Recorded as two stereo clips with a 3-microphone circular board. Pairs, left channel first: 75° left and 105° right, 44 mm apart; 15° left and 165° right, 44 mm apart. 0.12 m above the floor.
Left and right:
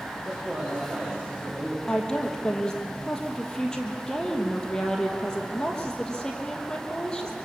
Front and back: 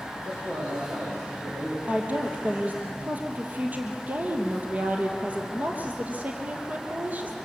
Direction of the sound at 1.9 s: 150° left.